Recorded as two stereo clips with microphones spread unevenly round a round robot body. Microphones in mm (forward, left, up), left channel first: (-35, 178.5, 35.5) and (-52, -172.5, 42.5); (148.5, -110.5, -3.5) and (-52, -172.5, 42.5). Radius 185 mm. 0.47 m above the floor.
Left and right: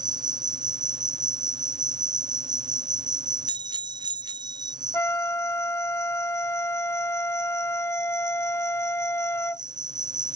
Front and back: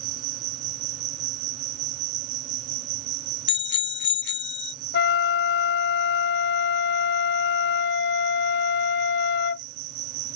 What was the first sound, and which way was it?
An insect, 170° right.